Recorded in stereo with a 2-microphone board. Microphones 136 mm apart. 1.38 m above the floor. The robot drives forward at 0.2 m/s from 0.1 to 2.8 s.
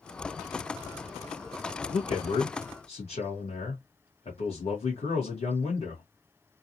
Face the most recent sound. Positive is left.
turn(degrees=50)  # may be behind; listen again after turning